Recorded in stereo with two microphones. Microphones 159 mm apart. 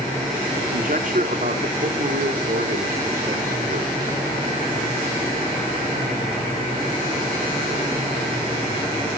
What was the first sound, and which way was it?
A man speaking, 55° right (ahead or behind).